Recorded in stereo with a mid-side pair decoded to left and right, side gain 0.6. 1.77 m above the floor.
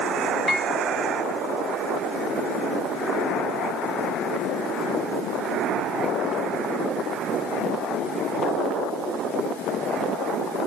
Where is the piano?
Straight ahead, 1.8 m.